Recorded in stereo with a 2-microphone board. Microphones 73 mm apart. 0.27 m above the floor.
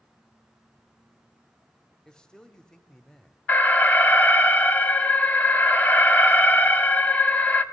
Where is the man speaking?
10° left (ahead or behind), 0.9 m.